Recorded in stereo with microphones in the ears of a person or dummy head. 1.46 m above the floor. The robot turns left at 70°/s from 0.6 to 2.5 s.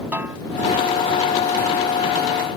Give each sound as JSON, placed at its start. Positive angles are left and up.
{"t": 0.1, "sound": "a snare drum", "side_deg": -15}